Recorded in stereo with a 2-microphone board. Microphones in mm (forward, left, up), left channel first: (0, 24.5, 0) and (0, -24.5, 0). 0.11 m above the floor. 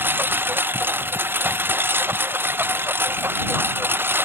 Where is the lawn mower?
45° right (ahead or behind); by 4.3 s 50° right (ahead or behind).